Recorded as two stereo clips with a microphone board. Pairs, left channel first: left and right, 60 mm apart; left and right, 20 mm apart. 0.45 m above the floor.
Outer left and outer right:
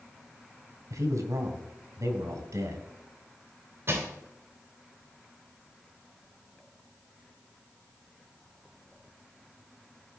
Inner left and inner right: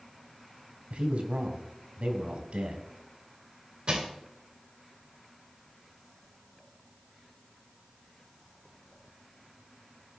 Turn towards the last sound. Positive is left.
turn(degrees=-45)  # may be behind; listen again after turning